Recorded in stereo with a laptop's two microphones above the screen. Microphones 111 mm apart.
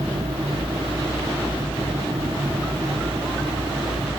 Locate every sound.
0.0 s a fan: 80° right, 2.5 m